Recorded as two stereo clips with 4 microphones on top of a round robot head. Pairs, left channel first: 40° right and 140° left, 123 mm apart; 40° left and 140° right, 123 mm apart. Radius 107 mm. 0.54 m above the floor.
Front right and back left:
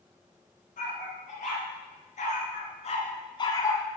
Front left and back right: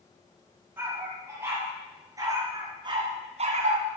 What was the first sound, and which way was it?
A dog barking, 65° right.